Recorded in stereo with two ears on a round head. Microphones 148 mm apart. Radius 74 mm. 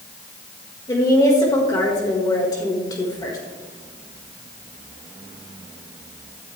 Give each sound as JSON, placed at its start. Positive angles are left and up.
{"t": 0.9, "sound": "a woman speaking", "side_deg": 25, "distance_m": 1.9}